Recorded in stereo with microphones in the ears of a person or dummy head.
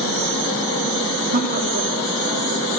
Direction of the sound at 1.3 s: 55° right (ahead or behind).